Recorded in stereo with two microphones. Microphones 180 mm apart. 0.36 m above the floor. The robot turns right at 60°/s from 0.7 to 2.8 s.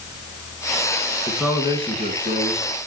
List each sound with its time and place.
1.3 s a man speaking: 175° left, 3 m; by 2.7 s 100° right, 3 m